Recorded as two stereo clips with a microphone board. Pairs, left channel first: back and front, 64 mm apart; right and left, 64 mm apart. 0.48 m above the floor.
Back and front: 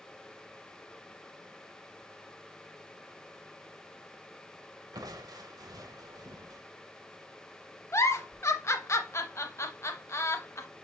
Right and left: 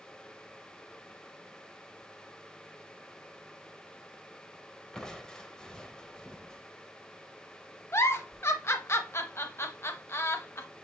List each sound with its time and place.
4.9 s crushing: 15° right, 0.6 m
7.9 s a giggle: 140° right, 0.6 m